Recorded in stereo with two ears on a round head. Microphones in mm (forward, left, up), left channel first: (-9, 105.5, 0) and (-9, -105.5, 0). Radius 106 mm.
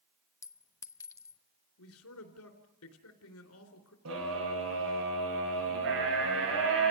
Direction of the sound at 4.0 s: 65° right (ahead or behind).